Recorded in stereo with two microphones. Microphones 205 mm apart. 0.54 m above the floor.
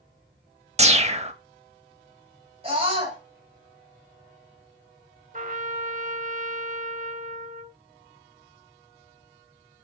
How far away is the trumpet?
About 0.8 m.